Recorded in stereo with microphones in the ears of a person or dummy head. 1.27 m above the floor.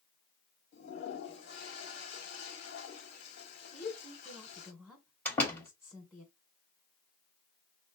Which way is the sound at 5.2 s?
10° left (ahead or behind).